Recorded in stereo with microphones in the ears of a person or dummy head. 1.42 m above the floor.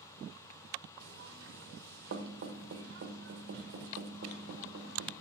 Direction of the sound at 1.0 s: 75° right (ahead or behind).